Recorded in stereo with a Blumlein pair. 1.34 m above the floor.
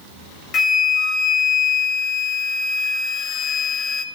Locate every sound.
0.5 s a flute: 20° left, 0.9 m